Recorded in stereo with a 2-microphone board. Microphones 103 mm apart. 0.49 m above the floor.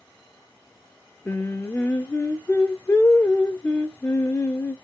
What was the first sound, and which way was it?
Singing, 20° left (ahead or behind).